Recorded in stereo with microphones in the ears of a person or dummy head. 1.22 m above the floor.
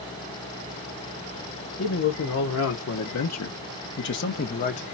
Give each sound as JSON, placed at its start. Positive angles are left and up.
{"t": 1.8, "sound": "a man speaking", "side_deg": 60, "distance_m": 1.3}